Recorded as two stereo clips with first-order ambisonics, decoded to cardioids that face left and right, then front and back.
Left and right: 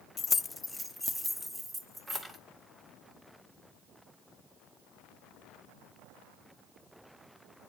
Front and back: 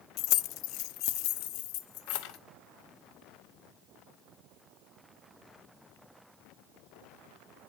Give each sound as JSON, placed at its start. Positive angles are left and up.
{"t": 0.2, "sound": "keys jangling", "azimuth_deg": 25, "distance_m": 0.5}